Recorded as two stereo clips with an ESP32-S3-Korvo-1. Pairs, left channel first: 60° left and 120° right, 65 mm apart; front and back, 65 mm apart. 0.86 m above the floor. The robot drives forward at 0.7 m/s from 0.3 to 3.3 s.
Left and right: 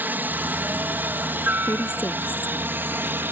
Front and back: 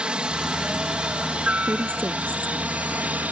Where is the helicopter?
120° right; by 3.3 s 135° right.